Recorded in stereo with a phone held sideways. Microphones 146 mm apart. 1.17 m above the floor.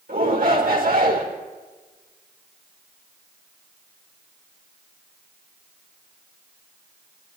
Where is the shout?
85° right, 4 m.